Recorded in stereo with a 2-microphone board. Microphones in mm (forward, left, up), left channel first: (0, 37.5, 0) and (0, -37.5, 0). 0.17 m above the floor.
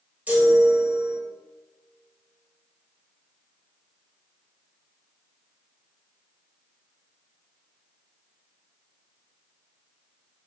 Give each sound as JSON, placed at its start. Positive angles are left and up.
{"t": 0.3, "sound": "a chime", "side_deg": -20, "distance_m": 1.3}